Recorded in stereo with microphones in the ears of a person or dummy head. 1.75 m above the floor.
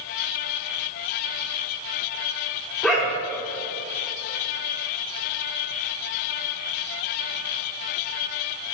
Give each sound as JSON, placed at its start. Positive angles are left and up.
{"t": 2.8, "sound": "a dog barking", "side_deg": 0, "distance_m": 1.4}